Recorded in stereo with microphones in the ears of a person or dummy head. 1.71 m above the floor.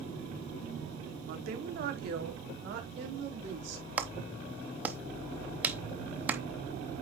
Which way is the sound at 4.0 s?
5° right (ahead or behind).